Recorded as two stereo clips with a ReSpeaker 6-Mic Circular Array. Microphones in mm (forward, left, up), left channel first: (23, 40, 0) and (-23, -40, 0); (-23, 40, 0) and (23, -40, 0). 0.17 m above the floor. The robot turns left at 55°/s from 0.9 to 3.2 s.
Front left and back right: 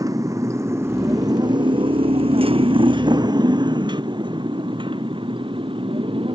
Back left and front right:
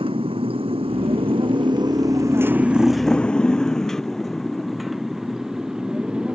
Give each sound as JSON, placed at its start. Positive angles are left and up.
{"t": 0.0, "sound": "a motorcycle", "azimuth_deg": -70}